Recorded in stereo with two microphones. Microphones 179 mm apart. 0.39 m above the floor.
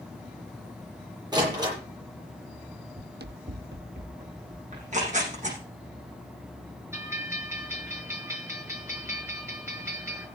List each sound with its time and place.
1.3 s a door slam: 20° right (ahead or behind), 9 m
3.0 s running footsteps: 60° right (ahead or behind), 0.7 m; by 5.7 s 65° right (ahead or behind), 3.5 m
4.7 s tearing paper: 40° right (ahead or behind), 7 m
6.9 s a bell: 15° right (ahead or behind), 5.5 m